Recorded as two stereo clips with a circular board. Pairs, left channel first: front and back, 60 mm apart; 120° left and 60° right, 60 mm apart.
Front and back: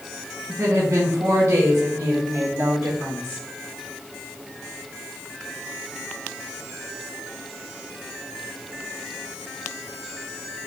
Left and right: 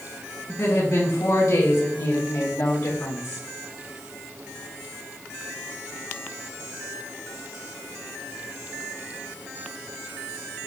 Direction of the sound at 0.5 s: 145° left.